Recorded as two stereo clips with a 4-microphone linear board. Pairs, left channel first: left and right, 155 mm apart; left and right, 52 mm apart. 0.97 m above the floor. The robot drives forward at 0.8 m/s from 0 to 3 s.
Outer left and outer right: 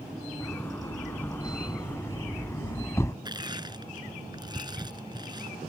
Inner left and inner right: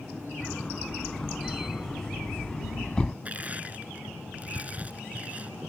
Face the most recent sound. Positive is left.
turn(degrees=-25)  # may be behind; listen again after turning